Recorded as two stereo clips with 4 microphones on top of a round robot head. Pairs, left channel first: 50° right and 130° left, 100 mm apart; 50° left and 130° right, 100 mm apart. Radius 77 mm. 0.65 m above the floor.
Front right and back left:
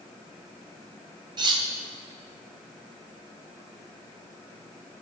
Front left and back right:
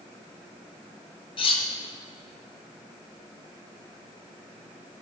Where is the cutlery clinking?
85° left, 1.1 m.